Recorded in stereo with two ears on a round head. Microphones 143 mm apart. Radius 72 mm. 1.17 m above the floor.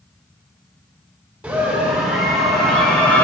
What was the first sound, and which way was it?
A scream, 10° right (ahead or behind).